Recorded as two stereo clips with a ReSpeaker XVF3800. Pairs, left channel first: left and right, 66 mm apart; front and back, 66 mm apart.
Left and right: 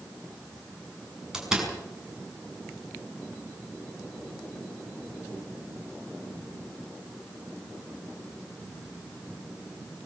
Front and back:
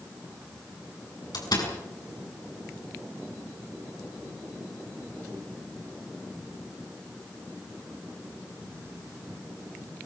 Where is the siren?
No siren in this recording.